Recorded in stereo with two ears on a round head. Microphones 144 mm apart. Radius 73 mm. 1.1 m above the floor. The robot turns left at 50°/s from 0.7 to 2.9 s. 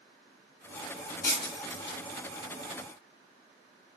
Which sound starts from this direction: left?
Breaking glass, at 1.2 s.